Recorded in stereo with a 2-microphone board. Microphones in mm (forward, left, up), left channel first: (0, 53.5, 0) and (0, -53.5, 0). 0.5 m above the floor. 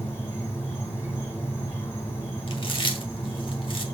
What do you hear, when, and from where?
0.0 s an insect: 25° left (ahead or behind), 2.5 m
2.5 s chewing: 55° left (ahead or behind), 1.2 m